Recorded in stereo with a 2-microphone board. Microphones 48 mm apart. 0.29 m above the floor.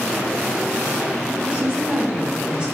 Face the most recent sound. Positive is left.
turn(degrees=-25)  # may be behind; listen again after turning